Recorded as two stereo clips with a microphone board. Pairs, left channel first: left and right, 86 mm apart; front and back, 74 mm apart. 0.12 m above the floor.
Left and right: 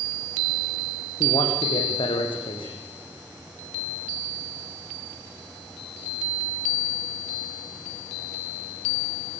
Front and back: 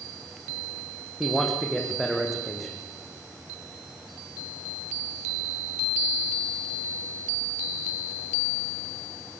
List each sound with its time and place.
1.2 s a man speaking: 90° left, 6 m